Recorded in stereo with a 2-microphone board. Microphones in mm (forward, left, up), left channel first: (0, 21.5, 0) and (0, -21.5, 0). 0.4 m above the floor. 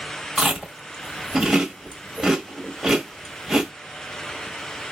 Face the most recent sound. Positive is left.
turn(degrees=-10)  # may be behind; listen again after turning